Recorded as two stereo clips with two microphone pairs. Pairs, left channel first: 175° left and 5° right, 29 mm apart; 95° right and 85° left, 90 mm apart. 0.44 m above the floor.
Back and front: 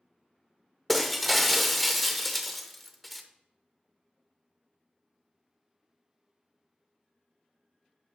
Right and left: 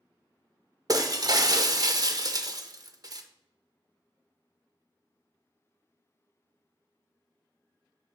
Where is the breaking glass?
85° left, 0.6 m.